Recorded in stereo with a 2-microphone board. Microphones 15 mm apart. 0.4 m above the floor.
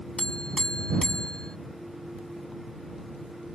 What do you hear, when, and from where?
0.2 s a buzzer: 60° left (ahead or behind)